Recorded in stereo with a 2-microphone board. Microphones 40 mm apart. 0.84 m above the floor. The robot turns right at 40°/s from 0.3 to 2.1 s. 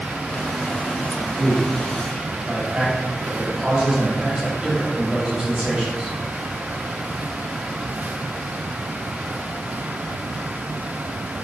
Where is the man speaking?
5° left (ahead or behind), 1.5 m; by 6.2 s 25° right (ahead or behind), 1.5 m.